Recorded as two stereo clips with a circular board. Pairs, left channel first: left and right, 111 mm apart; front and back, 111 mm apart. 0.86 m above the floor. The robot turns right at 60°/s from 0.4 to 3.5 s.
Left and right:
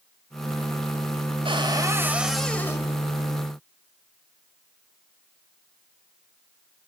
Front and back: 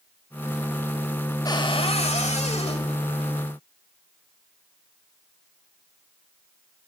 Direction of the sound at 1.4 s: 55° right.